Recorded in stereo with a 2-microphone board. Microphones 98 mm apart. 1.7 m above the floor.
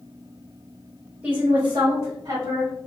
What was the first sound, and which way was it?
A woman speaking, 25° right (ahead or behind).